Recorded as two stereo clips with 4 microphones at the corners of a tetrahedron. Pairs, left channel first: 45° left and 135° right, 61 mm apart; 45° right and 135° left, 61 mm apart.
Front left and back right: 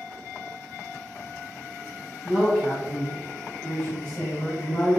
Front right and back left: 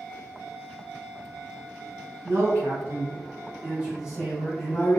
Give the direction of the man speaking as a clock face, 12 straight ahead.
8 o'clock.